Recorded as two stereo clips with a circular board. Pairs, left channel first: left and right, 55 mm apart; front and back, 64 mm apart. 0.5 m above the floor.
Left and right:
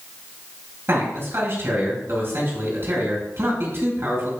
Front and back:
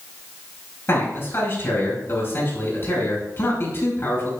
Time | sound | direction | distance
0.9 | a man speaking | 50° right | 4.5 m